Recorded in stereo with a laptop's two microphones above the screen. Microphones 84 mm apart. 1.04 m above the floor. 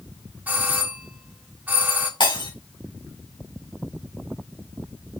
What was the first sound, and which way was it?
A doorbell, 20° right (ahead or behind).